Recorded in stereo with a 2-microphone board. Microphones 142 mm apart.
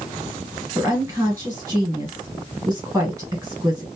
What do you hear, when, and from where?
0.8 s a woman speaking: 15° right (ahead or behind), 1.3 m